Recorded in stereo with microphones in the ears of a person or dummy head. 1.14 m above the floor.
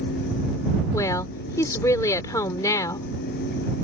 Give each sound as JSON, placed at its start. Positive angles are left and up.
{"t": 0.9, "sound": "a woman speaking", "side_deg": 20}